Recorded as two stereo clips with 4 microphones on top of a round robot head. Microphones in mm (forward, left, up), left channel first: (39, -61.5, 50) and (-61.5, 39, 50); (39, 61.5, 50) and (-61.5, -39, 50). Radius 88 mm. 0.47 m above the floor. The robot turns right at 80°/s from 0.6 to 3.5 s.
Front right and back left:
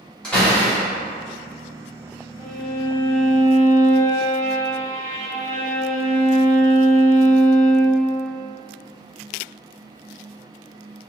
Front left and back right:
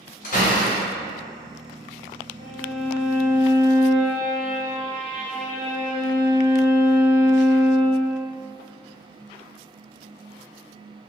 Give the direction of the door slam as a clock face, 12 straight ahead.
11 o'clock.